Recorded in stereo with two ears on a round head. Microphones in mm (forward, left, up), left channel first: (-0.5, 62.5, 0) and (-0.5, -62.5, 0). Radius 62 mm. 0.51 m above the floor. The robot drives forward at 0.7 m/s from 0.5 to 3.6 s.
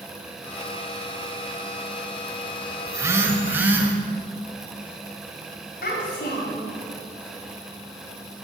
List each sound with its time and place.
2.9 s a phone buzzing: 25° right (ahead or behind), 0.7 m; by 4.0 s 15° right (ahead or behind), 1.2 m
5.8 s a child speaking: 75° left (ahead or behind), 3 m